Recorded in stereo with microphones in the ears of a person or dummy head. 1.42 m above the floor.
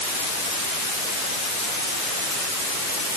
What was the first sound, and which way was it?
Only background noise.